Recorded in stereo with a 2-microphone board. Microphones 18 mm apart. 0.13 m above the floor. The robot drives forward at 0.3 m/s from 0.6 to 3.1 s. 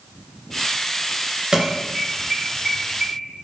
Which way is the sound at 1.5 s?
30° right (ahead or behind).